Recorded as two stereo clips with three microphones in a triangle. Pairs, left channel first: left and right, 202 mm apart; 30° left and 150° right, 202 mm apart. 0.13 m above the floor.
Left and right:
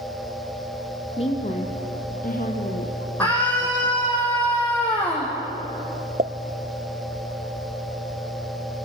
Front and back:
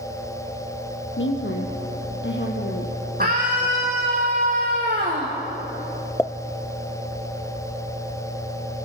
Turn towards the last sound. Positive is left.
turn(degrees=-50)